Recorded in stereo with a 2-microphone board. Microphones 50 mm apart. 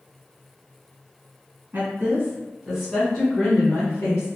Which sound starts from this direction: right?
A woman speaking, at 1.7 s.